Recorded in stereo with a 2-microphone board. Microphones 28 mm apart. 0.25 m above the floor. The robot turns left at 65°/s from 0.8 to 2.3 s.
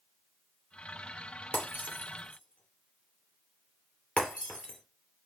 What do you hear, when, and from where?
1.5 s breaking glass: 75° left (ahead or behind), 3 m; by 4.8 s 50° left (ahead or behind), 3 m